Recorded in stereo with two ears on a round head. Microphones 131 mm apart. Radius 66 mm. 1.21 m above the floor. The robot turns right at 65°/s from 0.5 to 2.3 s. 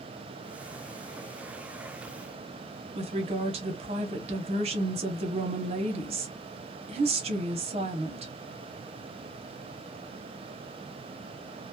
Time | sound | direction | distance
3.0 | a woman speaking | 40° right (ahead or behind) | 0.8 m